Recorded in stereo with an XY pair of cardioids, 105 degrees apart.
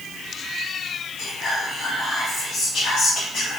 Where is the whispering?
55° left, 1.2 m.